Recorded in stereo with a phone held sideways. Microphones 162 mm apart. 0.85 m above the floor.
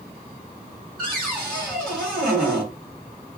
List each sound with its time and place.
1.0 s a cupboard door: 5° left (ahead or behind), 1.3 m